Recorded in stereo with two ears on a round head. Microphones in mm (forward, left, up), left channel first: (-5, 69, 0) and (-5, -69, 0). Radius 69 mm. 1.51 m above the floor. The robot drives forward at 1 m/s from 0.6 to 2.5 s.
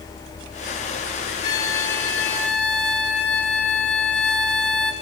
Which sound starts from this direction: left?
A violin, at 1.4 s.